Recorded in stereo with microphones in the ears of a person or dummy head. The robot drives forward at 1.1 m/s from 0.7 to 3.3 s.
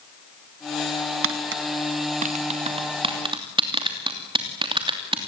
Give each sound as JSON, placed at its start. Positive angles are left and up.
{"t": 1.2, "sound": "tapping", "side_deg": -60, "distance_m": 1.2}